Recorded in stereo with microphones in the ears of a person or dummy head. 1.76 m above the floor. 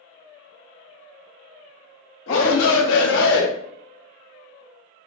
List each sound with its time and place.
2.3 s a shout: 80° left, 1.2 m; by 3.5 s 60° left (ahead or behind), 0.6 m